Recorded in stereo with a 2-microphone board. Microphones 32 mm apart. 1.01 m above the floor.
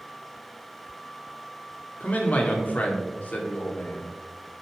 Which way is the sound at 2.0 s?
50° left (ahead or behind).